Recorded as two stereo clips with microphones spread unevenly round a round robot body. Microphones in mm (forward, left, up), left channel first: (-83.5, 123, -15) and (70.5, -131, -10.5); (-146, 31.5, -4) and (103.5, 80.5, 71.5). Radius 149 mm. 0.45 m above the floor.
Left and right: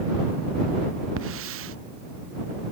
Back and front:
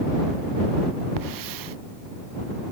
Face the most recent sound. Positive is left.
turn(degrees=-10)